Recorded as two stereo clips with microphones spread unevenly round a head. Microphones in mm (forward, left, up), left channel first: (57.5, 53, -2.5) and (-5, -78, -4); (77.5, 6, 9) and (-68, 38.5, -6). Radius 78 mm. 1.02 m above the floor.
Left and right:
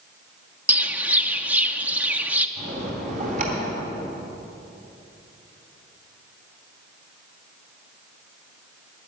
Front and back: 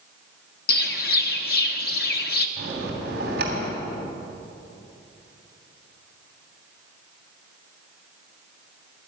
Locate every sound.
0.7 s a bird: 35° right, 0.8 m
2.6 s a bell: 160° right, 3 m